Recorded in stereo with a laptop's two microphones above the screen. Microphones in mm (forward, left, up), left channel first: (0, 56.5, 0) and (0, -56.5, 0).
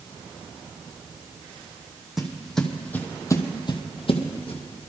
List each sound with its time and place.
2.2 s footsteps: 5° right (ahead or behind), 2.5 m; by 4.9 s 60° left (ahead or behind), 2 m